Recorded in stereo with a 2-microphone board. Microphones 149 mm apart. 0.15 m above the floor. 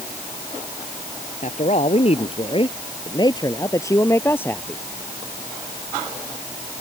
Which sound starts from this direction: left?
A man speaking, at 1.4 s.